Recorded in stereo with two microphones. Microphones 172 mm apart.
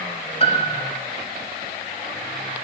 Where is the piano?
35° left (ahead or behind), 1.2 m.